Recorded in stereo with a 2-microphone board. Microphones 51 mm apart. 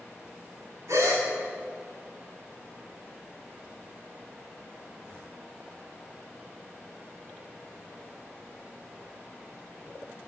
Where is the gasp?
70° right (ahead or behind), 4 m.